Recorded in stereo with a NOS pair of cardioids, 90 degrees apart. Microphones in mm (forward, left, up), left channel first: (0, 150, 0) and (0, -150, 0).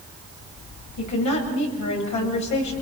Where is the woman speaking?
70° left, 8.5 m.